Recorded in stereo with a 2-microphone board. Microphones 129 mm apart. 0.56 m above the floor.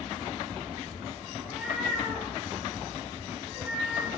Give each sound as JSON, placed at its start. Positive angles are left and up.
{"t": 1.4, "sound": "a cat meowing", "side_deg": -5, "distance_m": 4.0}